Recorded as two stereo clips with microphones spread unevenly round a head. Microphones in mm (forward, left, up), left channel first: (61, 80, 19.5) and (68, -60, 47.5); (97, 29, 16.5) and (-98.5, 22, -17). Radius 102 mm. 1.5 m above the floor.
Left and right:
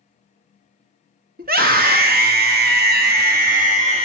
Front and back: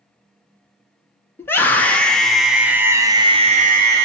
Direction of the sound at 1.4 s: 80° right.